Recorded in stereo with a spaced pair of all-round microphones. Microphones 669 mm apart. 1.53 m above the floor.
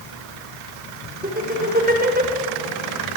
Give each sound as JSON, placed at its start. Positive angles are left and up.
{"t": 1.2, "sound": "laughter", "side_deg": -15, "distance_m": 6.0}